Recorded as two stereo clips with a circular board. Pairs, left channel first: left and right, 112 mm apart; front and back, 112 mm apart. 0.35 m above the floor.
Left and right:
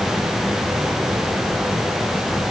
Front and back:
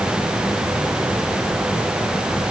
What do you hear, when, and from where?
Only background noise.